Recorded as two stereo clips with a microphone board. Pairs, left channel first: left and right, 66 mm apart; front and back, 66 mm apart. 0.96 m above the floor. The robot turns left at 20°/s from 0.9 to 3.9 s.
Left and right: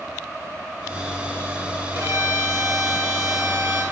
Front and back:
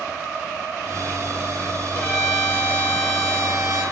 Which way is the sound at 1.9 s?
55° right.